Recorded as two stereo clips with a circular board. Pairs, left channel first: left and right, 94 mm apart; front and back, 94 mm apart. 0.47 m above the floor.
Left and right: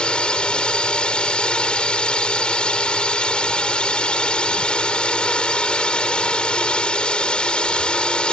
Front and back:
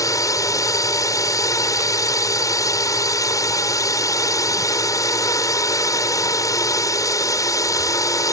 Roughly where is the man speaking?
No man speaking in this recording.